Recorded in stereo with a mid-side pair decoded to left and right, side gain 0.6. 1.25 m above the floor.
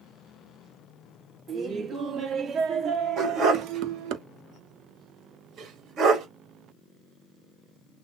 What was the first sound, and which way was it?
Laughter, 35° right.